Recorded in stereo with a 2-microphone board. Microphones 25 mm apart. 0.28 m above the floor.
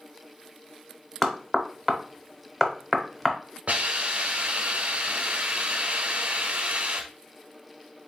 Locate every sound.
1.2 s knocking: 10° left (ahead or behind), 0.8 m
3.7 s a hiss: 55° right (ahead or behind), 1.0 m